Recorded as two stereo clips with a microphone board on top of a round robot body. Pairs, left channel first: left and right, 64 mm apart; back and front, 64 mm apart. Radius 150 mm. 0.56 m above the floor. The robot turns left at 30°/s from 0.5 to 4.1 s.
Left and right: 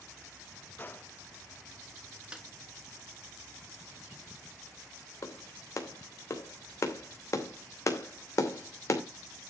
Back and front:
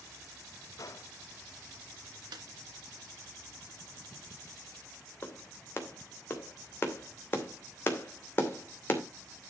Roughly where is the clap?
Behind left.